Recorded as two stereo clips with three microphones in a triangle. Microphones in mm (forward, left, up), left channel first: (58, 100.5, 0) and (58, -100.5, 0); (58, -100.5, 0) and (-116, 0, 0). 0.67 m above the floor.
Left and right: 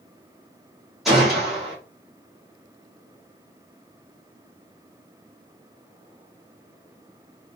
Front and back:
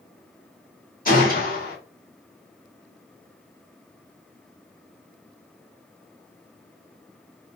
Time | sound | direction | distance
1.1 | a gunshot | straight ahead | 2.0 m